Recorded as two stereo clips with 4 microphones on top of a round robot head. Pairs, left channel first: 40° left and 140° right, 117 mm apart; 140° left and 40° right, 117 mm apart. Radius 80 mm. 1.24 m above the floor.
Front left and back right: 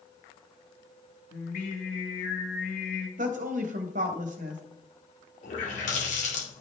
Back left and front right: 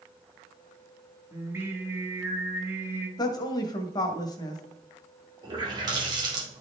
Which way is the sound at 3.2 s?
160° right.